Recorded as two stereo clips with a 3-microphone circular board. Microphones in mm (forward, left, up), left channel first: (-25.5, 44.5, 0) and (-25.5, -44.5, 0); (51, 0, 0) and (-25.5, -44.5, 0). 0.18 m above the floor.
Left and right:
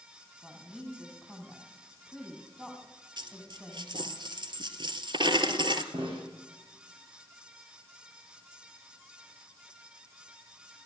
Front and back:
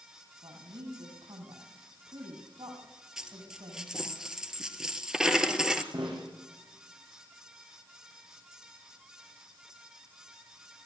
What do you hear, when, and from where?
0.4 s a woman speaking: 175° right, 7 m
3.2 s a dropped coin: 65° right, 1.4 m
5.9 s a snare drum: 110° right, 6 m